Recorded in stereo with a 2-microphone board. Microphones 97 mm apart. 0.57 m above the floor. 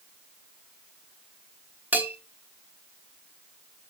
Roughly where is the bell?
Centre.